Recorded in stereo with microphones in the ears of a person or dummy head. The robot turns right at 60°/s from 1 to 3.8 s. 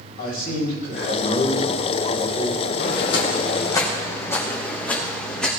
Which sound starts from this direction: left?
Footsteps, at 2.8 s.